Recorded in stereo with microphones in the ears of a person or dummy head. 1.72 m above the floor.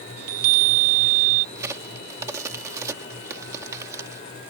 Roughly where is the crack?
Centre.